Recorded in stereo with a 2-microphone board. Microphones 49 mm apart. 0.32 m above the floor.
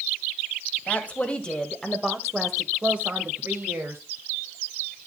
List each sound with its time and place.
0.9 s a woman speaking: 30° left (ahead or behind), 1.6 m; by 4.0 s 50° right (ahead or behind), 1.6 m